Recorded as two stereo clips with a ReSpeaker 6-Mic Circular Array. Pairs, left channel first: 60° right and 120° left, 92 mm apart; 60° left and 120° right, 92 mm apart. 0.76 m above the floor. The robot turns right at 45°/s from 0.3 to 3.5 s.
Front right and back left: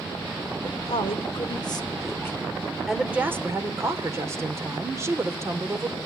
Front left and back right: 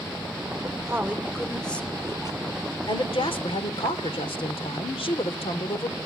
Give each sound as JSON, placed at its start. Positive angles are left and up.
{"t": 0.6, "sound": "a woman speaking", "azimuth_deg": -65, "distance_m": 1.9}